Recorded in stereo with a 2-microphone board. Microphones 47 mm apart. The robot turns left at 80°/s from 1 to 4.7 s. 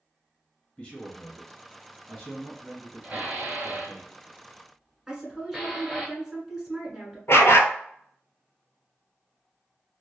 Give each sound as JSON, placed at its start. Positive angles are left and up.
{"t": 0.8, "sound": "a man speaking", "azimuth_deg": 135, "distance_m": 1.8}
{"t": 3.0, "sound": "dishes clattering", "side_deg": -35, "distance_m": 1.2}
{"t": 5.1, "sound": "a woman speaking", "side_deg": -10, "distance_m": 1.2}
{"t": 7.3, "sound": "a dog barking", "side_deg": 70, "distance_m": 0.5}